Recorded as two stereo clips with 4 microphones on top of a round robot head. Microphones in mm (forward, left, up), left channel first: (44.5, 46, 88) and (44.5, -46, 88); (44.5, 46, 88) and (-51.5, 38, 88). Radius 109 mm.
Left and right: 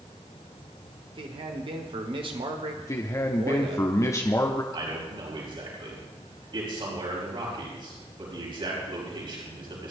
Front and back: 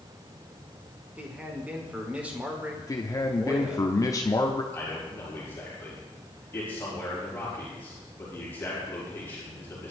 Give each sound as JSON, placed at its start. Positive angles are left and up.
{"t": 1.1, "sound": "a man speaking", "azimuth_deg": -100, "distance_m": 2.0}
{"t": 2.8, "sound": "a man speaking", "azimuth_deg": 45, "distance_m": 1.3}
{"t": 4.7, "sound": "a man speaking", "azimuth_deg": -65, "distance_m": 5.0}